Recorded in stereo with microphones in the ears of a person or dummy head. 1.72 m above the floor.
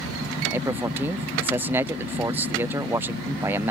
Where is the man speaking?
5° right (ahead or behind).